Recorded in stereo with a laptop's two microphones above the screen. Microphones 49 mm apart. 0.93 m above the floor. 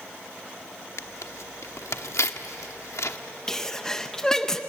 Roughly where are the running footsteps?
I don't hear running footsteps.